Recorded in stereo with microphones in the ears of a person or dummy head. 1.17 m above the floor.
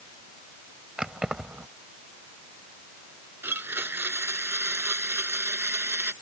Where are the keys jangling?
5° right (ahead or behind).